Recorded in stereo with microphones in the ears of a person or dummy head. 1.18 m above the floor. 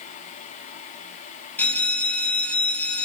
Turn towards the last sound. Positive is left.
turn(degrees=5)  # may be behind; listen again after turning